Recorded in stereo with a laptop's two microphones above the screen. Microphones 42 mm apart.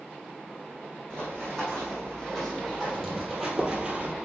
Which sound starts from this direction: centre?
Running footsteps, at 1.1 s.